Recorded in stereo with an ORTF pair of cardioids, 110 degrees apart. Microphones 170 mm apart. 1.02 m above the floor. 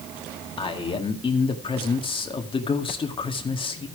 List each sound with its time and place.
0.6 s a man speaking: 30° left, 1.9 m